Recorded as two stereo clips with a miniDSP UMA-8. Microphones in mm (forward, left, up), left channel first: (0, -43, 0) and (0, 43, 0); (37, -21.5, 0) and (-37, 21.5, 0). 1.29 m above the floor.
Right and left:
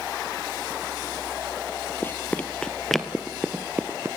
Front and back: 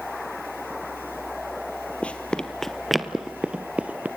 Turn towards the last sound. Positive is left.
turn(degrees=105)